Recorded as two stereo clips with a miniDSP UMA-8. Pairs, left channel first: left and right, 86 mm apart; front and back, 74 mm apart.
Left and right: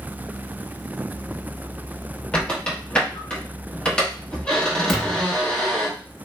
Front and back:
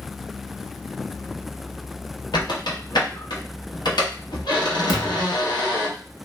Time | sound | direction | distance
2.3 | a squeak | 10° left | 0.9 m
4.9 | a thud | 5° left | 1.0 m